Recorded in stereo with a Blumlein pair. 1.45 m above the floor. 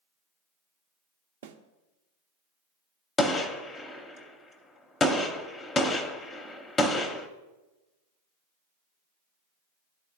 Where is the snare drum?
60° right, 0.5 m.